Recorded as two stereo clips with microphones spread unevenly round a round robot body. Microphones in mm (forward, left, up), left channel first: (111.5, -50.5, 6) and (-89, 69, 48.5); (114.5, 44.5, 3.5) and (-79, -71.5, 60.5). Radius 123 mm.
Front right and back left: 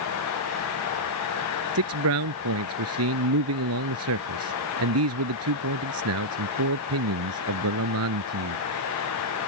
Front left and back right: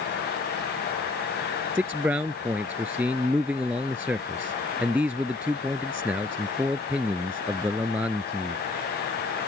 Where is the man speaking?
125° left.